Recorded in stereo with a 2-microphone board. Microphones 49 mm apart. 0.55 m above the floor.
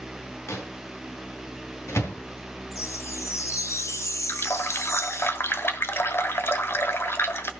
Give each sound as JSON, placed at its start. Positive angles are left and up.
{"t": 0.5, "sound": "a microwave", "side_deg": 70, "distance_m": 3.5}
{"t": 2.7, "sound": "a chime", "side_deg": 75, "distance_m": 0.9}
{"t": 4.3, "sound": "a running tap", "side_deg": 55, "distance_m": 1.3}